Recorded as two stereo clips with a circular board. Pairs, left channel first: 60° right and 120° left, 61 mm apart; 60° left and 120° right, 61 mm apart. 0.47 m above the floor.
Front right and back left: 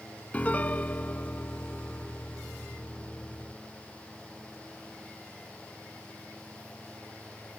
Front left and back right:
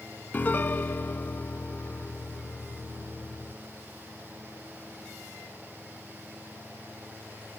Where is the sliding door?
No sliding door in this recording.